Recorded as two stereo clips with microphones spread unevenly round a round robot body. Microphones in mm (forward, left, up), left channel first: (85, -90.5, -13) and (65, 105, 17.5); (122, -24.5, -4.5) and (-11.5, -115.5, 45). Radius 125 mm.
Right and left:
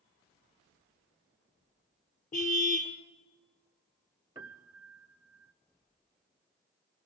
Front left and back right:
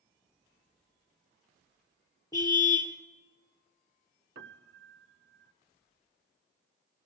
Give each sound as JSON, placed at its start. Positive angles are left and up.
{"t": 2.3, "sound": "a car horn", "azimuth_deg": -35, "distance_m": 3.0}
{"t": 4.3, "sound": "a piano", "azimuth_deg": 170, "distance_m": 0.7}